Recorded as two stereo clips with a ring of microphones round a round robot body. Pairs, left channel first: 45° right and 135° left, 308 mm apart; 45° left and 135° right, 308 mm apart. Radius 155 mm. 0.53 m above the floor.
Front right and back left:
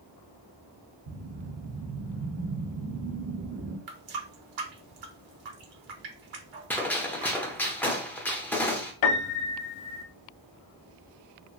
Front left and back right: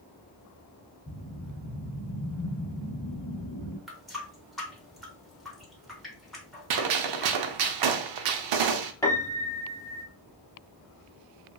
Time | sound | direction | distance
1.1 | a whoosh | 115° left | 1.1 m
3.9 | a running tap | 135° left | 0.9 m
6.7 | a gunshot | 130° right | 0.5 m
9.0 | a piano | 35° right | 0.5 m